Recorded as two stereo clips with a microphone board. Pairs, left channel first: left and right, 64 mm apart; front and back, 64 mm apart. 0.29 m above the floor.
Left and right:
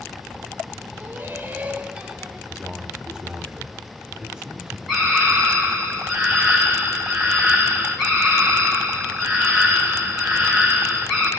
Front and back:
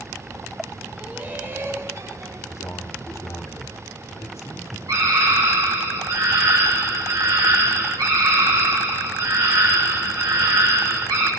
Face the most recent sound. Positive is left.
turn(degrees=-175)